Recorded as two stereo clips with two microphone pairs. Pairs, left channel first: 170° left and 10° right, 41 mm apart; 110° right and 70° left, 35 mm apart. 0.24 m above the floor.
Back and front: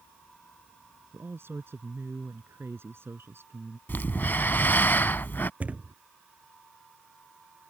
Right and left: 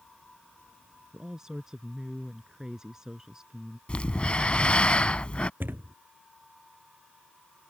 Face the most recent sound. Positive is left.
turn(degrees=45)